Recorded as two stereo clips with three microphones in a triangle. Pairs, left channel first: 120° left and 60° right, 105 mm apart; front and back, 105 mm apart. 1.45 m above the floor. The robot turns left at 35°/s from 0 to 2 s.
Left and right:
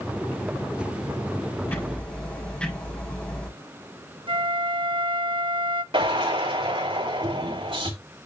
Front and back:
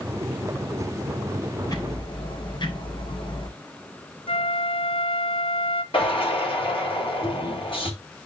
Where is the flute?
25° right, 0.7 m.